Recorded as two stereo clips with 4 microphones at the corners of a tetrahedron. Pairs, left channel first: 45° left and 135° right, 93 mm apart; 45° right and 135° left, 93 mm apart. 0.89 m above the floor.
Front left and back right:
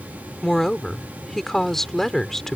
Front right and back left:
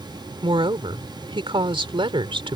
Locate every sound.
0.4 s a woman speaking: 130° left